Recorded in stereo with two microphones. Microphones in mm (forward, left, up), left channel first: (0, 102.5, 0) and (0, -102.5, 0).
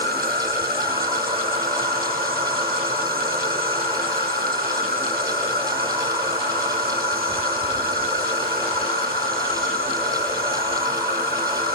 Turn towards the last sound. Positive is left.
turn(degrees=-50)  # may be behind; listen again after turning